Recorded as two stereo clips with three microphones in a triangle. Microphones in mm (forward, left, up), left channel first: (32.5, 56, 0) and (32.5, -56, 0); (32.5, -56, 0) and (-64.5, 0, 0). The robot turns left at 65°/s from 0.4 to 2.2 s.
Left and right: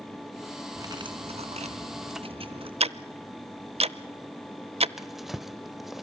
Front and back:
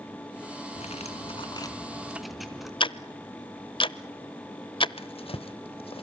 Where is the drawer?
Straight ahead, 0.7 m.